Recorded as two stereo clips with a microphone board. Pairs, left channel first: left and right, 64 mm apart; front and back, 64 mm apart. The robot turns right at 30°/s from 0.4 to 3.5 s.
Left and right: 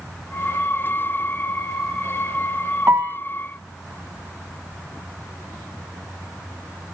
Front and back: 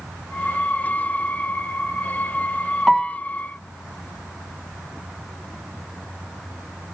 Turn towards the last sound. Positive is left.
turn(degrees=-65)